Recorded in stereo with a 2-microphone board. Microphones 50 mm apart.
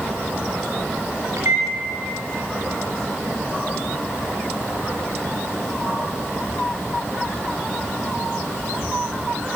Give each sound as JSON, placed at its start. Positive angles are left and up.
{"t": 1.4, "sound": "a microwave", "side_deg": -70, "distance_m": 4.0}